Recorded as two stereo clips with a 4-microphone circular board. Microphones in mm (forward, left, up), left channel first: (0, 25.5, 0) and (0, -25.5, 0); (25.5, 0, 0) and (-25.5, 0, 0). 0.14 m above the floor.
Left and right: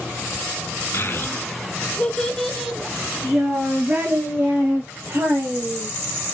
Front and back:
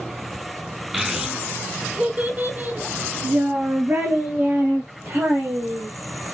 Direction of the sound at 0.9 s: 100° left.